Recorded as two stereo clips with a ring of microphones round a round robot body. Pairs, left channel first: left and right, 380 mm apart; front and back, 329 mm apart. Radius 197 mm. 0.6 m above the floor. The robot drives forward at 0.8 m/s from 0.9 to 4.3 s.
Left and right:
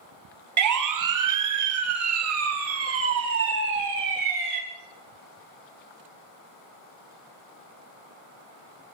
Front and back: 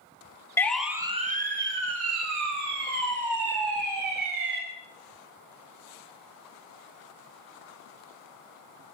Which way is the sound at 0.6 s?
80° right.